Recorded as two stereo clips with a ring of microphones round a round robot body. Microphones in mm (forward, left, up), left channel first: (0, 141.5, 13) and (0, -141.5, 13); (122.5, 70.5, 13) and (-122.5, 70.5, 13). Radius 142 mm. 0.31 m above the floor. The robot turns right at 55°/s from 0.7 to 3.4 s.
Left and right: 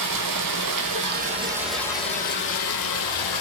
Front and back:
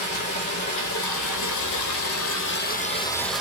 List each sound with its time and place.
0.0 s running water: 55° right, 1.3 m; by 3.4 s 95° left, 1.3 m